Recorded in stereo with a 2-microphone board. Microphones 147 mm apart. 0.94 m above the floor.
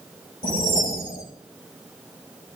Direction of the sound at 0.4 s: 75° left (ahead or behind).